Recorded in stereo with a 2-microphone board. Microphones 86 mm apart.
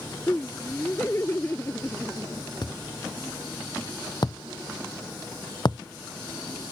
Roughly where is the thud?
Left.